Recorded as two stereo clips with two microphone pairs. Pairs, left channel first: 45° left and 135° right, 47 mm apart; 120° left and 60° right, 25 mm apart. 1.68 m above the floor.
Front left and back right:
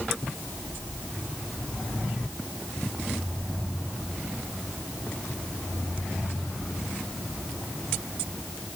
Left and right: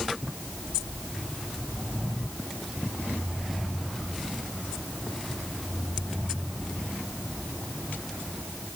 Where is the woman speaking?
I don't hear a woman speaking.